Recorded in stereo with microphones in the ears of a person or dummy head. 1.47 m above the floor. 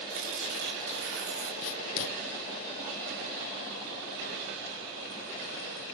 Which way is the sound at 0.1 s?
65° right (ahead or behind).